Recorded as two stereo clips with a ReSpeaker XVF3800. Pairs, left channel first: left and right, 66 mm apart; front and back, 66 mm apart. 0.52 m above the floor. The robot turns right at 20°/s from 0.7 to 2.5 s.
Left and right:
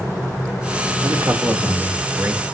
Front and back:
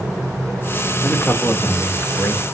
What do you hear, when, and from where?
1.0 s a man speaking: 75° right, 1.7 m; by 2.4 s 45° right, 1.7 m